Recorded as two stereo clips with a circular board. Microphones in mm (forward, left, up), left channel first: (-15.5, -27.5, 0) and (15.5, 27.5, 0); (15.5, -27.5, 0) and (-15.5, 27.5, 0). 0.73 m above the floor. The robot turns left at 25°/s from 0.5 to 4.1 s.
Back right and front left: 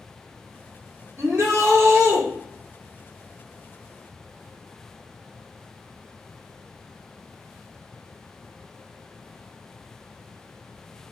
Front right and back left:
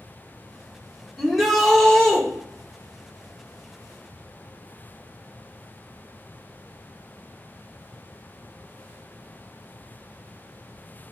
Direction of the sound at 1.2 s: 35° left.